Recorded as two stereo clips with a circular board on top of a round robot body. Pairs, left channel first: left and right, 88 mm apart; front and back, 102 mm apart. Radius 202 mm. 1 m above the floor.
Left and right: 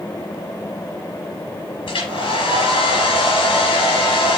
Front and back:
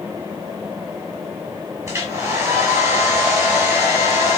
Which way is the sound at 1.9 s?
120° left.